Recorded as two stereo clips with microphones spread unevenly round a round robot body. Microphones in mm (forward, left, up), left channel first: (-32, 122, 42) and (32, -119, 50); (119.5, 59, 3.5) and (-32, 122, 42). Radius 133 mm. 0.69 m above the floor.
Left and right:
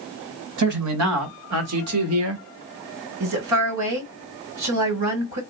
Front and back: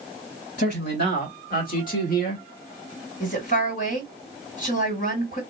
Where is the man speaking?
65° right, 3 m; by 2.5 s 45° right, 1.2 m.